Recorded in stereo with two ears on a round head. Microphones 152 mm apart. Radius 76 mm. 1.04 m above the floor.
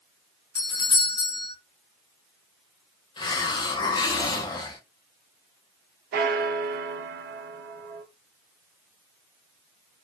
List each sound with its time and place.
0.6 s a doorbell: 25° left (ahead or behind), 0.9 m
3.2 s a hiss: 25° left (ahead or behind), 0.5 m
6.1 s a bell: 60° right (ahead or behind), 0.5 m